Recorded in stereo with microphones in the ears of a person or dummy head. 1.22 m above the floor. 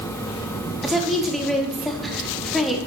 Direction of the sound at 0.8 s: 5° left (ahead or behind).